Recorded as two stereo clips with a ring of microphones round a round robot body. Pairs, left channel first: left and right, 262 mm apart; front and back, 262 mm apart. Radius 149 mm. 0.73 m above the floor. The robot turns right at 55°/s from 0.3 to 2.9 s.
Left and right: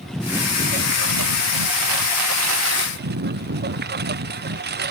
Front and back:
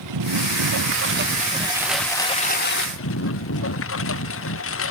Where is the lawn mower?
Straight behind; by 4.9 s 40° right.